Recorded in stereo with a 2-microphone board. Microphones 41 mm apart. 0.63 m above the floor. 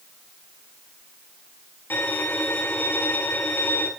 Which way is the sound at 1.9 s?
55° left (ahead or behind).